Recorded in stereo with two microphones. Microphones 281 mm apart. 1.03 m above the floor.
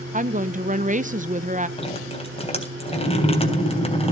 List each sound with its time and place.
0.1 s a woman speaking: 30° right (ahead or behind), 0.6 m
1.8 s dripping: 20° left (ahead or behind), 3 m